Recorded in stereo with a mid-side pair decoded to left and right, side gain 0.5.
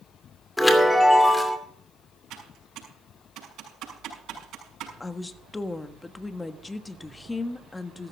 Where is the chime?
15° left, 2.5 m.